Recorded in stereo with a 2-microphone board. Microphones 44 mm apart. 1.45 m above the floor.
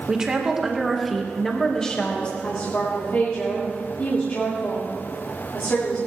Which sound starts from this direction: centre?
A woman speaking, at 0.1 s.